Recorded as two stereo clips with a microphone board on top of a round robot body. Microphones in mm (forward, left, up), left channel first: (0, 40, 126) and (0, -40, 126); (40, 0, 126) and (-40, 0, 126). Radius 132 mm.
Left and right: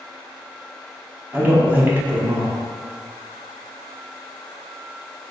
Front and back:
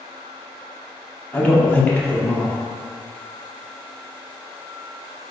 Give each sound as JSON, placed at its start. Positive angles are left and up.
{"t": 1.3, "sound": "a man speaking", "azimuth_deg": -50, "distance_m": 0.8}